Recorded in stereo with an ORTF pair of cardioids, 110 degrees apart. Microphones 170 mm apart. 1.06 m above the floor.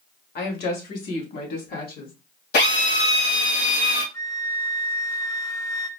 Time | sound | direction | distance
0.3 | a woman speaking | 65° left | 1.8 m
2.5 | a drill | 65° left | 2.5 m
4.1 | a flute | 20° left | 0.7 m